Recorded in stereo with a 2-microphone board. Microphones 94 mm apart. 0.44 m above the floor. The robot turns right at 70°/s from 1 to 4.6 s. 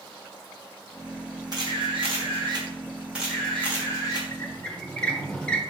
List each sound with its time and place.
1.5 s a camera shutter: 130° right, 2.5 m; by 4.2 s 60° left, 2.5 m
4.3 s a squeak: 25° left (ahead or behind), 1.0 m; by 5.6 s 10° left (ahead or behind), 1.0 m